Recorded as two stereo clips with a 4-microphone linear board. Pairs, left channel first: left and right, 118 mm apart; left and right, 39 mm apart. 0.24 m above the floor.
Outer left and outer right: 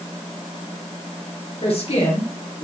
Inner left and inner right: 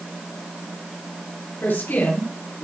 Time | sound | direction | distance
1.6 | a woman speaking | 60° left (ahead or behind) | 2.5 m